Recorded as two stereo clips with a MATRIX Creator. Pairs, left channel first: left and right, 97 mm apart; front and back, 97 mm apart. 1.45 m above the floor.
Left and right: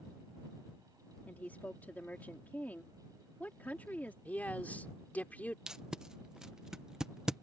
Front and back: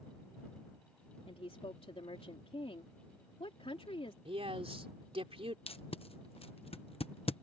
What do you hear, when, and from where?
1.3 s a woman speaking: 15° left
4.2 s a man speaking: 165° left
5.7 s tape being pulled: 5° right